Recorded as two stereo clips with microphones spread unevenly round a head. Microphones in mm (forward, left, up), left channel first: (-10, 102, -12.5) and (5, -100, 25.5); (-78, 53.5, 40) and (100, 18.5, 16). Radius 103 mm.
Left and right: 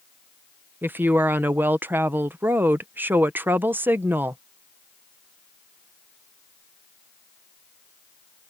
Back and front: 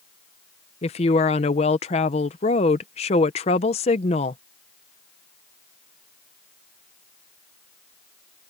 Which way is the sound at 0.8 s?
155° right.